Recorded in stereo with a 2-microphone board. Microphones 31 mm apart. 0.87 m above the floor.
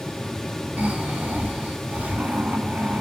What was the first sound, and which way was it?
Snoring, 70° right (ahead or behind).